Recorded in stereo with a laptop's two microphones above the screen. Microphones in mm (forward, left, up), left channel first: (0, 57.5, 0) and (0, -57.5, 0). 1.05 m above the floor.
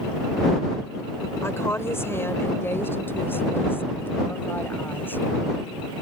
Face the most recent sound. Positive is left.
turn(degrees=15)  # may be behind; listen again after turning